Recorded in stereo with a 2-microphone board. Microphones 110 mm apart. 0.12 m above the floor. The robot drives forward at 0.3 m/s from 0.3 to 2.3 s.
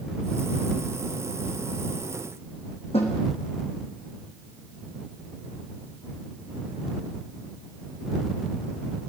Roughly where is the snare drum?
Left.